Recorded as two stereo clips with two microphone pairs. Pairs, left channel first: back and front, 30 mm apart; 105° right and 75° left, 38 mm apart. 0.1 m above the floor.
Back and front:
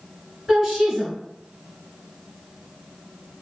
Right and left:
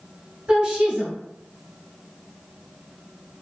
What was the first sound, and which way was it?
A woman speaking, 75° left.